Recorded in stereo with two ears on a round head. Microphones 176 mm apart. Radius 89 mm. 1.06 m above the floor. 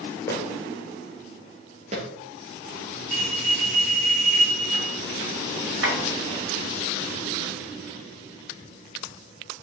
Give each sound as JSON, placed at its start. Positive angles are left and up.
{"t": 0.3, "sound": "footsteps", "side_deg": 15, "distance_m": 1.1}
{"t": 3.1, "sound": "a bell", "side_deg": -45, "distance_m": 1.9}
{"t": 5.8, "sound": "tapping", "side_deg": -65, "distance_m": 1.5}